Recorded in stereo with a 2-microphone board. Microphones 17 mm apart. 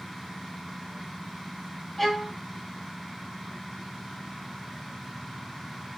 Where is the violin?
10° left (ahead or behind), 3.5 m.